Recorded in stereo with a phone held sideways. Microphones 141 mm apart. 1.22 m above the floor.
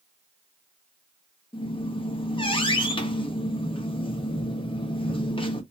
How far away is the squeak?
About 0.8 m.